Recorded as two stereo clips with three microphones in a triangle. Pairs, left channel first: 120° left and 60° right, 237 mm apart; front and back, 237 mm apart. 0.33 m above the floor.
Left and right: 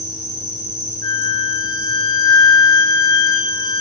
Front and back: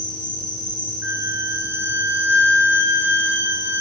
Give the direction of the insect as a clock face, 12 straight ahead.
2 o'clock.